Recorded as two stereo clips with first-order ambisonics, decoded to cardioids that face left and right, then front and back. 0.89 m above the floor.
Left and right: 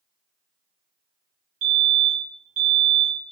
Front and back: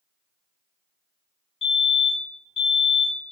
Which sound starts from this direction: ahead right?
A fire alarm, at 1.6 s.